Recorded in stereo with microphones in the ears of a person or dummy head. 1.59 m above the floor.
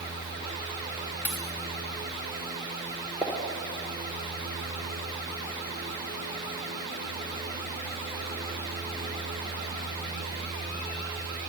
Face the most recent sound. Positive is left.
turn(degrees=0)  # may be behind; listen again after turning